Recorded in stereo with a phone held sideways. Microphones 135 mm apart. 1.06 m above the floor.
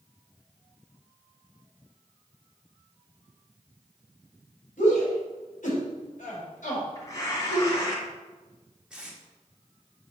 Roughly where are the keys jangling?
I don't hear keys jangling.